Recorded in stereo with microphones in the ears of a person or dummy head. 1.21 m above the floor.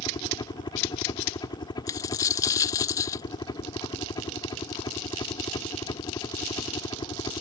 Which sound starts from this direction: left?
A helicopter, at 0.0 s.